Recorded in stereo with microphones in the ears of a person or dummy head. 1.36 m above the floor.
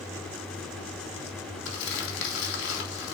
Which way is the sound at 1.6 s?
75° left (ahead or behind).